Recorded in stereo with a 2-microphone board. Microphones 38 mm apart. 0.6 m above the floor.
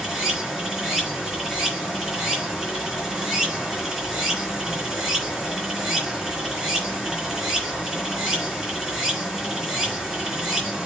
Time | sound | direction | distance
0.0 | running water | 10° right (ahead or behind) | 4 m